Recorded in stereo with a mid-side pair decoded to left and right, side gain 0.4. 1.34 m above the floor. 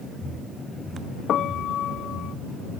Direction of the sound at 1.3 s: 70° left.